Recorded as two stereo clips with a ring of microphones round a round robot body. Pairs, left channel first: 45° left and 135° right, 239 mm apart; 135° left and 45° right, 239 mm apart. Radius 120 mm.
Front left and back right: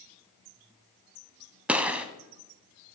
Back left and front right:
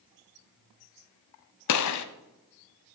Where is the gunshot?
140° left, 0.9 m.